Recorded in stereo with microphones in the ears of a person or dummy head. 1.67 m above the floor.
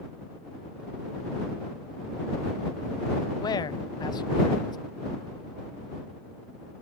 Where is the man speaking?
20° left (ahead or behind).